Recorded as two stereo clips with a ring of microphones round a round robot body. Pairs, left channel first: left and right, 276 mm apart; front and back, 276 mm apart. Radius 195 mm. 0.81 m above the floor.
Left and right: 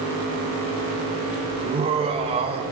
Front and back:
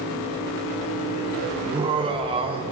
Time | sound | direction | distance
1.6 | laughter | 135° right | 0.5 m